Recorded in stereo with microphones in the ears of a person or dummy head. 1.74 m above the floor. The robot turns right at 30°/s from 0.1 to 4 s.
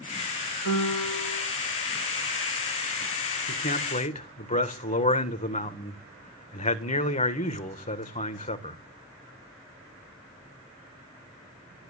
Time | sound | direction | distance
0.7 | a piano | 60° left (ahead or behind) | 3 m
3.5 | a man speaking | 45° left (ahead or behind) | 1.5 m